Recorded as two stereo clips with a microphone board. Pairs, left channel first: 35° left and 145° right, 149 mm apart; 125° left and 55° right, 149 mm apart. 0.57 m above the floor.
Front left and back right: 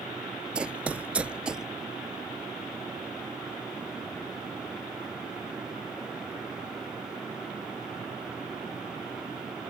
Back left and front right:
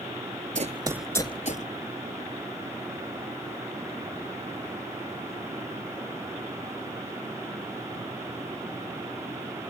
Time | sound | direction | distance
0.6 | running footsteps | 65° right | ?